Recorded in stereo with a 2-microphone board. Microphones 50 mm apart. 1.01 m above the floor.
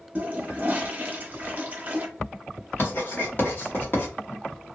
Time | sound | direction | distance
0.1 | a toilet flushing | 30° right (ahead or behind) | 0.7 m
2.8 | writing | 40° left (ahead or behind) | 1.2 m